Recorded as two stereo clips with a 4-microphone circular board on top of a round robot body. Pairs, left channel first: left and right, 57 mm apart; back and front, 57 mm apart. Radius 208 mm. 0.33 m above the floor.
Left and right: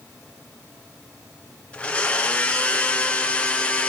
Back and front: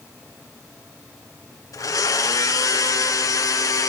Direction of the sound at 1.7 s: 160° left.